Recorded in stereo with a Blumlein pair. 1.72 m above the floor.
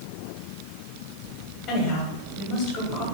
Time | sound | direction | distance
1.7 | a woman speaking | 35° left | 1.7 m